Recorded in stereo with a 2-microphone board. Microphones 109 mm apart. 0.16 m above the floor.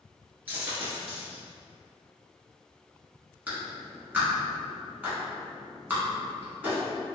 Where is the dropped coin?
20° right (ahead or behind), 1.1 m.